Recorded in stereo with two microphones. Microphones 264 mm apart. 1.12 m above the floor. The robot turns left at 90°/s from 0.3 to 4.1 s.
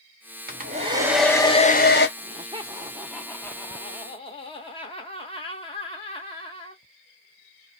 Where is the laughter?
20° right (ahead or behind), 0.7 m; by 6.8 s 20° left (ahead or behind), 0.7 m.